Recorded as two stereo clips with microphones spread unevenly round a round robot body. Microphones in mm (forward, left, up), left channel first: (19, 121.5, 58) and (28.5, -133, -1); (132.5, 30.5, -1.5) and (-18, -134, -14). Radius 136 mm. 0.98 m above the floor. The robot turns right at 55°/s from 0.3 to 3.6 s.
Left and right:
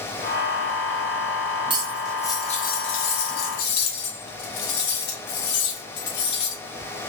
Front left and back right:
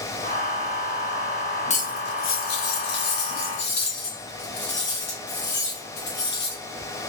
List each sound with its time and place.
1.7 s cutlery clinking: 10° right, 0.8 m; by 6.6 s 95° left, 0.8 m